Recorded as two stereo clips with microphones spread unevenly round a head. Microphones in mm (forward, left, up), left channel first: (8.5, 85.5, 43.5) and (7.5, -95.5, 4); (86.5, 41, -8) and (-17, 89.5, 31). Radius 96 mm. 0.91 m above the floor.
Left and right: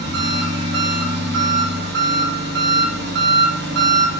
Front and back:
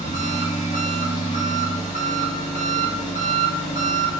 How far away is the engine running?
About 0.8 m.